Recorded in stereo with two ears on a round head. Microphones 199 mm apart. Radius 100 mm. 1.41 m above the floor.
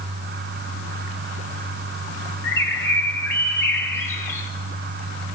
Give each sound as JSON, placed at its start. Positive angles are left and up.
{"t": 2.4, "sound": "a bird", "side_deg": 10, "distance_m": 2.0}